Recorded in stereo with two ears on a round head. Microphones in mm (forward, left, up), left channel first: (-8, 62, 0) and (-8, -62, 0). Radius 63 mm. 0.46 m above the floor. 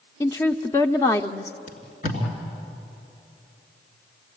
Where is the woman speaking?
20° left (ahead or behind), 0.7 m.